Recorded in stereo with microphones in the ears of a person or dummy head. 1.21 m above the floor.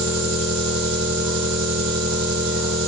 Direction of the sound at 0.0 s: 70° right (ahead or behind).